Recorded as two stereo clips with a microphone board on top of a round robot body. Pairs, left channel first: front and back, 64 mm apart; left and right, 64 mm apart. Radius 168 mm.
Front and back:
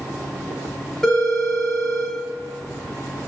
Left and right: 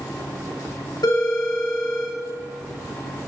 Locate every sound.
1.0 s a phone ringing: 85° left, 1.3 m